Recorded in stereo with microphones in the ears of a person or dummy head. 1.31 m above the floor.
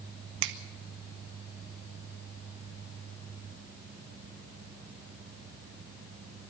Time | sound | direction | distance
0.4 | a finger snap | 60° right (ahead or behind) | 1.2 m